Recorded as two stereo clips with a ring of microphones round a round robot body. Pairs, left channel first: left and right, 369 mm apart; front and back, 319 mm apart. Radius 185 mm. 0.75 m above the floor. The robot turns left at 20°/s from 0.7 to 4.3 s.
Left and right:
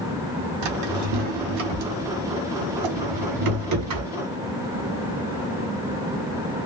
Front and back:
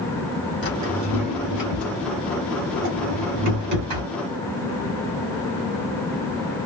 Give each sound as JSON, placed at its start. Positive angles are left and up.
{"t": 0.6, "sound": "a drawer", "azimuth_deg": -75, "distance_m": 1.5}